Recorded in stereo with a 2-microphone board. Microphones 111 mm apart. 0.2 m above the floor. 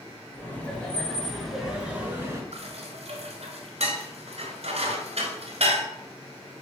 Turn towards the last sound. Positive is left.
turn(degrees=-65)  # may be behind; listen again after turning